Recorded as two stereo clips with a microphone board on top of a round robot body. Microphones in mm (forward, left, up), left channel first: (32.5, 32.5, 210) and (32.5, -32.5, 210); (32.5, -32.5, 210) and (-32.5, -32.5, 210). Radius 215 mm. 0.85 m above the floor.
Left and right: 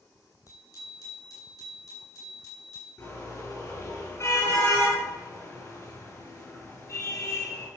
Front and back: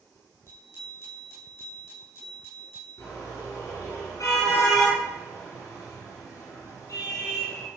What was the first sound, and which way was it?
A bicycle bell, 55° left.